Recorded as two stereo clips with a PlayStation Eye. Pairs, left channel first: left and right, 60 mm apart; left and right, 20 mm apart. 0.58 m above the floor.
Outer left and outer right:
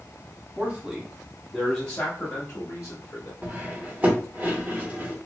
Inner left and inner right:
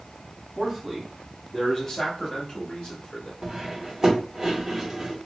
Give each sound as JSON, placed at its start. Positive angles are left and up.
{"t": 0.6, "sound": "a man speaking", "side_deg": -25, "distance_m": 1.0}
{"t": 3.4, "sound": "cutlery clinking", "side_deg": -25, "distance_m": 1.0}